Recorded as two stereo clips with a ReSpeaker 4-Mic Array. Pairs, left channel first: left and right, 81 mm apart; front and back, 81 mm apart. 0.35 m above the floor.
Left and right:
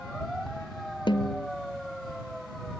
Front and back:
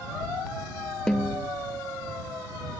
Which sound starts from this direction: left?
A snare drum, at 1.1 s.